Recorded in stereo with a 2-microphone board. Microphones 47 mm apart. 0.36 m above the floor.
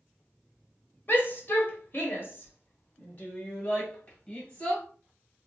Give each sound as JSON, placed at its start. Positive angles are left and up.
{"t": 1.1, "sound": "a shout", "side_deg": 45, "distance_m": 1.5}